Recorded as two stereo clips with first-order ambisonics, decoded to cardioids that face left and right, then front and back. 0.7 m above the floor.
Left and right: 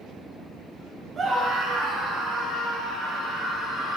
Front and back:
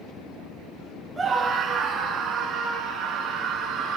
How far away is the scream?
About 1.0 m.